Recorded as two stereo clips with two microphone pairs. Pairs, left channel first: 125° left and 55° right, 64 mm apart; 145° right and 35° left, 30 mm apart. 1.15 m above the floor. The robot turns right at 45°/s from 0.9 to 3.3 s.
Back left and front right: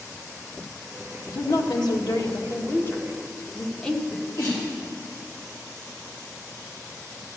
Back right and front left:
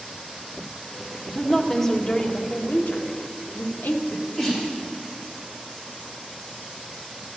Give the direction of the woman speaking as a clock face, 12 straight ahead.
8 o'clock.